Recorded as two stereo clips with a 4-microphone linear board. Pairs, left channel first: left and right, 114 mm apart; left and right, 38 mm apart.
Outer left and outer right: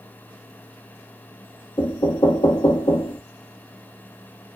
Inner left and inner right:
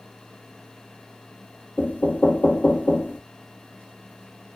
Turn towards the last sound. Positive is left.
turn(degrees=50)  # may be behind; listen again after turning